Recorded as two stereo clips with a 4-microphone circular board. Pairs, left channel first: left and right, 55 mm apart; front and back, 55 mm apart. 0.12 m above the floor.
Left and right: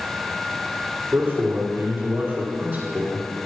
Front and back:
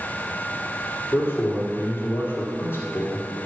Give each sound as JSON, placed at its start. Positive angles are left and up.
{"t": 1.1, "sound": "a man speaking", "azimuth_deg": -45, "distance_m": 3.5}